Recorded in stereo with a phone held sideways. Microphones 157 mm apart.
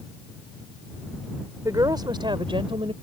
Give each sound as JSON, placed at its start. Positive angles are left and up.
{"t": 1.6, "sound": "a woman speaking", "side_deg": -25}